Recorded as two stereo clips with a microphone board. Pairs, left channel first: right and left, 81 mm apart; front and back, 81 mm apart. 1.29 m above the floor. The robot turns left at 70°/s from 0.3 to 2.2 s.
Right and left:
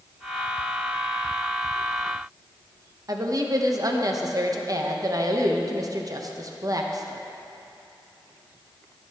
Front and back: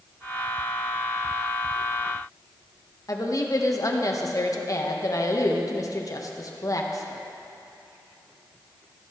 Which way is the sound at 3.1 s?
45° left.